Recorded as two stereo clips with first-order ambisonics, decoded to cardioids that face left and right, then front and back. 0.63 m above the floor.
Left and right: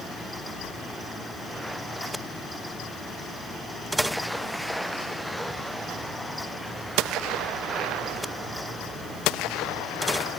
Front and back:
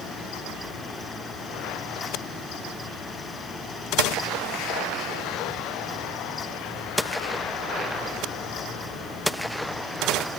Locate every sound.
Only background noise.